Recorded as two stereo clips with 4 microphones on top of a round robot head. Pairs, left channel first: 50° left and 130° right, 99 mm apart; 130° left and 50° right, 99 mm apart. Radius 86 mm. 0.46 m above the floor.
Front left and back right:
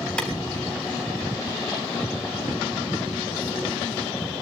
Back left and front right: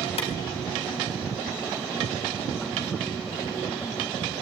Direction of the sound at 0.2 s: 130° left.